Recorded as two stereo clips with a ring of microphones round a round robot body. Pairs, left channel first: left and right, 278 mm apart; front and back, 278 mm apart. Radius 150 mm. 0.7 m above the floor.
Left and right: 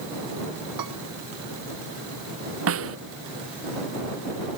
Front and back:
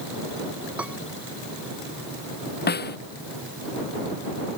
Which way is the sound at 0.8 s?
95° right.